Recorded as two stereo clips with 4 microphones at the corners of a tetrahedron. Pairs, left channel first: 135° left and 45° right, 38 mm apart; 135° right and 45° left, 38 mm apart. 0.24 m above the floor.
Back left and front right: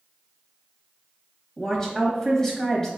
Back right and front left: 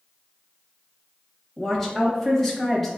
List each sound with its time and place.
1.6 s a woman speaking: 145° left, 0.9 m